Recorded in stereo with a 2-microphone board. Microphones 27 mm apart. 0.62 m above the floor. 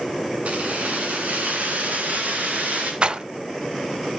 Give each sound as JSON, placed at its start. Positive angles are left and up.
{"t": 0.5, "sound": "keys jangling", "side_deg": -65, "distance_m": 4.0}
{"t": 3.0, "sound": "a rattle", "side_deg": -45, "distance_m": 0.6}